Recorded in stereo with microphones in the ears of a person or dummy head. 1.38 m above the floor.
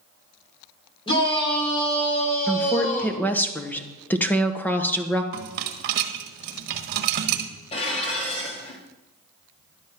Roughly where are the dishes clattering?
Left.